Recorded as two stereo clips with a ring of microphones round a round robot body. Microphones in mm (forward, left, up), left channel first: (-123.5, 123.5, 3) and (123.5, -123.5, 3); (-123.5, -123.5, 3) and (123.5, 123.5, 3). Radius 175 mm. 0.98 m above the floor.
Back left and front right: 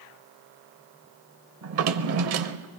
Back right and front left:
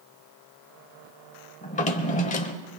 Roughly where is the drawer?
Right.